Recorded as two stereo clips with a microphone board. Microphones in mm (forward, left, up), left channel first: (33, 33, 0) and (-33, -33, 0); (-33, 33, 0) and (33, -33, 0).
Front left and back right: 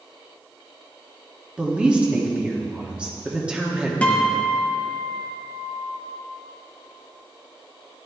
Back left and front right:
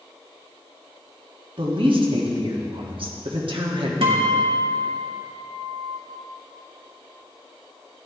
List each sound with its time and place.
1.6 s a woman speaking: 60° right, 1.3 m
4.0 s a guitar: 30° right, 1.4 m